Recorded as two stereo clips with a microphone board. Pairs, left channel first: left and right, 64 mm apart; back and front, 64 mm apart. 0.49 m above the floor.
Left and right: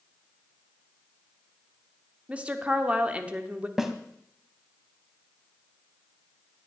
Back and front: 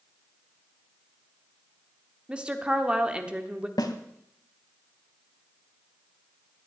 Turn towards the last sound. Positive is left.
turn(degrees=-175)